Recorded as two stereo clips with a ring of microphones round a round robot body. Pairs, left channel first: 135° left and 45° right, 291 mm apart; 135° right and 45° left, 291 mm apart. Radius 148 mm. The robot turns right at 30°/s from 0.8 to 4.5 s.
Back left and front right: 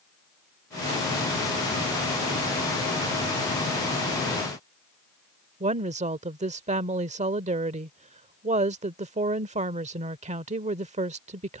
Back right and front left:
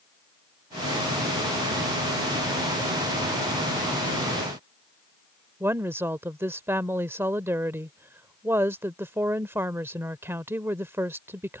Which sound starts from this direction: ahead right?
A woman speaking, at 5.6 s.